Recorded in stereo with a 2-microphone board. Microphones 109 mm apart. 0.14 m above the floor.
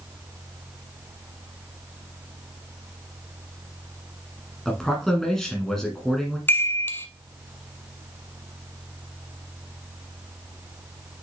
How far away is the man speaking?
About 1.3 m.